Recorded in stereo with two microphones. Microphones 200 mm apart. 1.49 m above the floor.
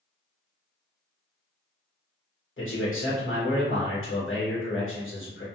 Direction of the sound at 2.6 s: 80° left.